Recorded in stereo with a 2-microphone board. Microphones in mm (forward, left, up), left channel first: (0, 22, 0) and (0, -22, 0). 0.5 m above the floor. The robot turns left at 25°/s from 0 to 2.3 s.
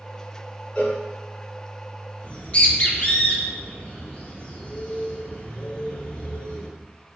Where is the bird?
25° left (ahead or behind), 0.5 m.